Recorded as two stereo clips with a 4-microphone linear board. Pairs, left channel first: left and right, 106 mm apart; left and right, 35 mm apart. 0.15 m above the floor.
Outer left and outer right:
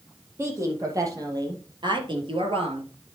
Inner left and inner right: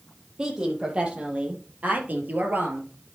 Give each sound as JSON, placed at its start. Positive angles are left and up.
{"t": 0.4, "sound": "a woman speaking", "side_deg": -25, "distance_m": 4.0}